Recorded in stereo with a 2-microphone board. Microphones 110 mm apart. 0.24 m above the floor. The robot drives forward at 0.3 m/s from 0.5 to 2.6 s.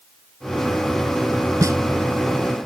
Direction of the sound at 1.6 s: 30° right (ahead or behind).